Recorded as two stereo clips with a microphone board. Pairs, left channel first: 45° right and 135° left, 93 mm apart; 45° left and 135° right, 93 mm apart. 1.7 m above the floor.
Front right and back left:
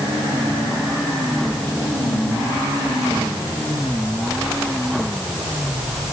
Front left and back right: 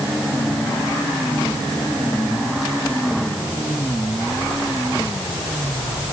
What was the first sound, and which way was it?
Only background noise.